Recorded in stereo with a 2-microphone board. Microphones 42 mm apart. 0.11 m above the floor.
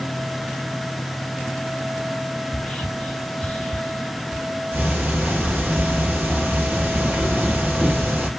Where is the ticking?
40° right (ahead or behind), 2.5 m.